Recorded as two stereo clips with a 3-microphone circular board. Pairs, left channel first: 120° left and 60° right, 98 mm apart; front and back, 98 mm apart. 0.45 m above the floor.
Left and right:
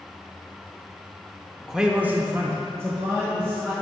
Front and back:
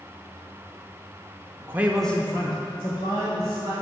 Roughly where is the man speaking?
Behind right.